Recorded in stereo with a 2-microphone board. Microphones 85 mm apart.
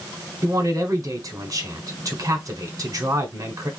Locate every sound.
0.4 s a man speaking: 45° right (ahead or behind), 1.4 m